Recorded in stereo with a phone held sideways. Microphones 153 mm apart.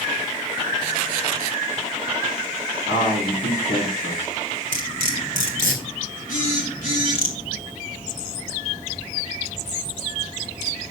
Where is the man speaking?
75° left (ahead or behind), 2 m.